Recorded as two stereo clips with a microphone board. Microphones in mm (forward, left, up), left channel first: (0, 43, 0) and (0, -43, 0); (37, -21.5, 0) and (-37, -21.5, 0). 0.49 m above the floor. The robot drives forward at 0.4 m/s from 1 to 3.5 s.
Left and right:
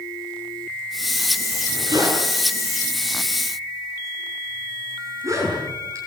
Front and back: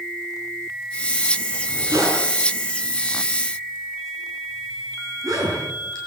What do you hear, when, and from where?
1.5 s a zipper: 135° right, 7.5 m; by 6.0 s 140° right, 8.5 m